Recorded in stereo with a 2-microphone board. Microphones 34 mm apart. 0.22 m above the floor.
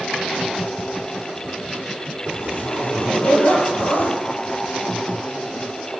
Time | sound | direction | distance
2.2 | a zipper | 75° left (ahead or behind) | 6 m